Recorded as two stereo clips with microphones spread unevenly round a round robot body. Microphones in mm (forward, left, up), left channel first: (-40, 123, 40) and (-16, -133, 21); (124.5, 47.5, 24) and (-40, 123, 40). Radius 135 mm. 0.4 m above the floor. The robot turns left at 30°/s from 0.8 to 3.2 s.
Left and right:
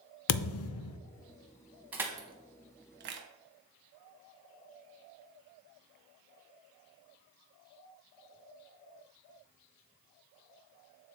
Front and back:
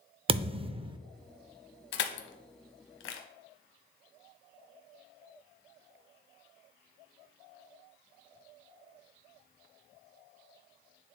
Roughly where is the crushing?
Ahead.